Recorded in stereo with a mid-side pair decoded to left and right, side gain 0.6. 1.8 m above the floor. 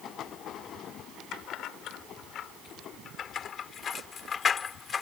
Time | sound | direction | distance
1.3 | keys jangling | 60° left | ?